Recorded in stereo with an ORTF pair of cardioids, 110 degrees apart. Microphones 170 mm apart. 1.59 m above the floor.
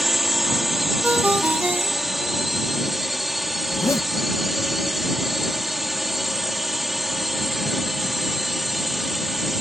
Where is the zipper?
15° left.